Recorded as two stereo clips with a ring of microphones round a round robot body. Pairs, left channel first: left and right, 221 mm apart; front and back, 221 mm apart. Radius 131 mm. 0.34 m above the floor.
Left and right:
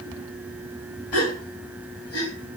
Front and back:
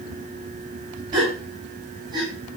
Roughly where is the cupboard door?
No cupboard door in this recording.